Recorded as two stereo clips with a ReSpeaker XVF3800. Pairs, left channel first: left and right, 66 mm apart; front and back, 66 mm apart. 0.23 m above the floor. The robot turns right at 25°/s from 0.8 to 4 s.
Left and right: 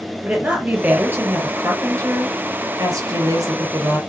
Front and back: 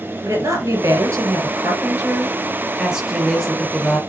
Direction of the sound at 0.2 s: 155° right.